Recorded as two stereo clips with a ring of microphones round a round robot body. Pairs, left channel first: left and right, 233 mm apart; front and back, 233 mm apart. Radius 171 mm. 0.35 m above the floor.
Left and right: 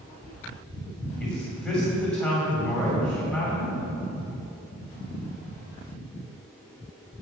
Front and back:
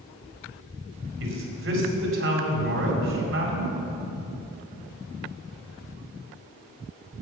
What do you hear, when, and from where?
1.2 s a man speaking: 175° left, 2.5 m